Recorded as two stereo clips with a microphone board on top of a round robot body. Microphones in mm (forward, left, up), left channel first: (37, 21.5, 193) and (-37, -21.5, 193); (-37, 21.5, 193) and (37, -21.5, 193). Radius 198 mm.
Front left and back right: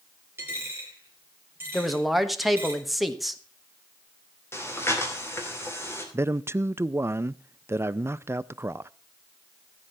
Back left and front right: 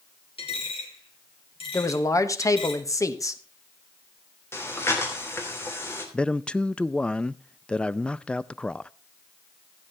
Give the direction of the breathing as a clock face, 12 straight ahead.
9 o'clock.